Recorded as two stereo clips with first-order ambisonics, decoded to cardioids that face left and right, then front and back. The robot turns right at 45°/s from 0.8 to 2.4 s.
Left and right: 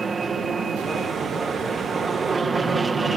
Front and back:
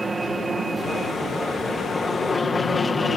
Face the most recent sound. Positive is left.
turn(degrees=-50)